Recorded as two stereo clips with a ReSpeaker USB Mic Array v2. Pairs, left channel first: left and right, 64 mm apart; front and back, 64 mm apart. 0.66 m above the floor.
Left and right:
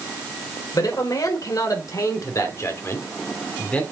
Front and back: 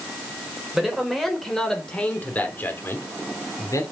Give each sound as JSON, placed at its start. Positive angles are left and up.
{"t": 0.7, "sound": "a man speaking", "azimuth_deg": 95, "distance_m": 3.5}